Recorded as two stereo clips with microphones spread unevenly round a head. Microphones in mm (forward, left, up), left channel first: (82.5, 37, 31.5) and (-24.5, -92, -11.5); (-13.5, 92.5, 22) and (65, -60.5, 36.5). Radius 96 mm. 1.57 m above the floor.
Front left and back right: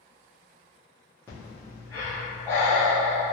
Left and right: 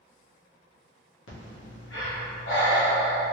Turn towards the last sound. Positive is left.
turn(degrees=125)